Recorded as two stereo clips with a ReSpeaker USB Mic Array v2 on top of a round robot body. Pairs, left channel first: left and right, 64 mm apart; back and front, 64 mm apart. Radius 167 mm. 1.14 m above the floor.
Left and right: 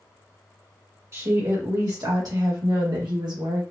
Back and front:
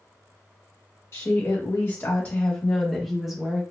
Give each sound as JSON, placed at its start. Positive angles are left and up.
{"t": 1.1, "sound": "a woman speaking", "azimuth_deg": -135, "distance_m": 1.7}